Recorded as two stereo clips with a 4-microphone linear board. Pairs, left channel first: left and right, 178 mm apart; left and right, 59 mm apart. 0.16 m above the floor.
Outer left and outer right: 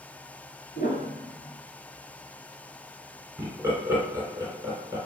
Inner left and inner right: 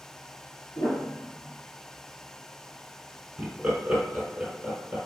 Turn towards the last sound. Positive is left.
turn(degrees=-15)  # may be behind; listen again after turning